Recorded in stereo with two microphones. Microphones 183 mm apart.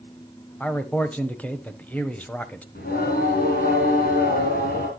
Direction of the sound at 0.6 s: 10° left (ahead or behind).